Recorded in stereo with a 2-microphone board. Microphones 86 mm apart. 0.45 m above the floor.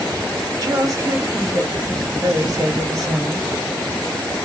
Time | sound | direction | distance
0.6 | a woman speaking | 45° right (ahead or behind) | 1.5 m